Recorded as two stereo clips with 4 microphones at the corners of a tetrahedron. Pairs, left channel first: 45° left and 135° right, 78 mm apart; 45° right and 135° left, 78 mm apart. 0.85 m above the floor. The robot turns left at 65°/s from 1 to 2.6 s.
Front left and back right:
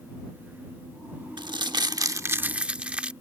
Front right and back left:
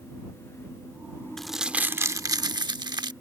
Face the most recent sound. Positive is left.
turn(degrees=150)